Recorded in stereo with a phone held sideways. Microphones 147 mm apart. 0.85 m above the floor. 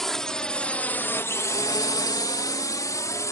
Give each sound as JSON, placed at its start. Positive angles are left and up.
{"t": 0.0, "sound": "a drone", "side_deg": 5}